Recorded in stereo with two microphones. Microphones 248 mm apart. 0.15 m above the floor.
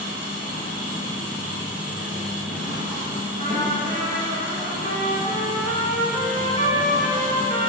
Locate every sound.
0.0 s an engine running: 5° right (ahead or behind), 1.4 m
3.4 s a trumpet: 30° left (ahead or behind), 0.6 m